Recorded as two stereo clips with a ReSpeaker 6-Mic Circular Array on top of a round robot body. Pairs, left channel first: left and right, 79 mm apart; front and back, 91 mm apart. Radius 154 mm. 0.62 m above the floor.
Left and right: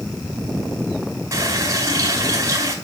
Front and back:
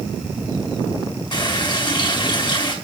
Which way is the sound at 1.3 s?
40° right.